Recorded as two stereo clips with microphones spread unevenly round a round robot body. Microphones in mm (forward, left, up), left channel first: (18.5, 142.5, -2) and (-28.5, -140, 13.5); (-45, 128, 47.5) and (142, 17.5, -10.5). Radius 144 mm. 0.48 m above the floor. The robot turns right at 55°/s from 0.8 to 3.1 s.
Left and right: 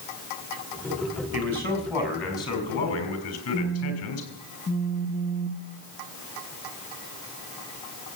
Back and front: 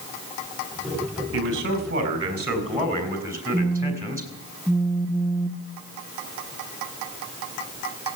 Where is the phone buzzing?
55° left, 0.7 m.